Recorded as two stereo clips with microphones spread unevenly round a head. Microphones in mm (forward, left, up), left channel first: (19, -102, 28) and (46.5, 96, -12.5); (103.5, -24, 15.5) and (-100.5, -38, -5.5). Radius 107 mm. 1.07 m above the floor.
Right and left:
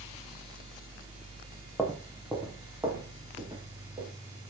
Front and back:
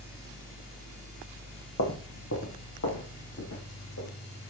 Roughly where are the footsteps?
Ahead.